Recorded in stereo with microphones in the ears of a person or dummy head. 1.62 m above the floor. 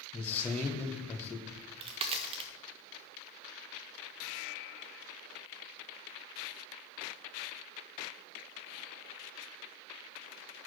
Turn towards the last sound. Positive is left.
turn(degrees=-30)  # may be behind; listen again after turning